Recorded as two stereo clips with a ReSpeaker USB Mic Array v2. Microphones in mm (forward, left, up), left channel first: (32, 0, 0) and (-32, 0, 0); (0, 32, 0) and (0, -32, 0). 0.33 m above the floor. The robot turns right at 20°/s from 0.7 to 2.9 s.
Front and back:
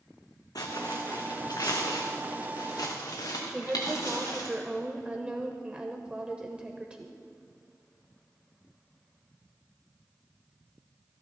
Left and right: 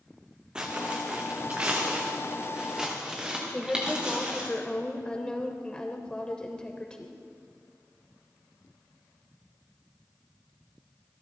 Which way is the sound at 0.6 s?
15° right.